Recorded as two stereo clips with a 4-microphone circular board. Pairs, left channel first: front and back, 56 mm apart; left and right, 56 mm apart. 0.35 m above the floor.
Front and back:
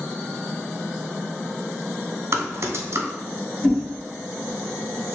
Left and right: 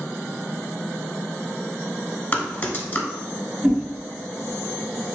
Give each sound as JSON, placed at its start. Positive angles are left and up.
{"t": 2.3, "sound": "typing on a keyboard", "azimuth_deg": 145, "distance_m": 0.7}
{"t": 3.6, "sound": "a whoosh", "azimuth_deg": -40, "distance_m": 1.3}